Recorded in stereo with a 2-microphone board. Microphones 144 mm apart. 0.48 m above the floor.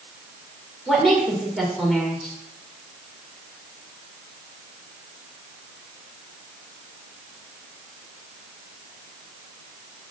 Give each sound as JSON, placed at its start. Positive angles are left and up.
{"t": 0.9, "sound": "a woman speaking", "side_deg": 0, "distance_m": 1.8}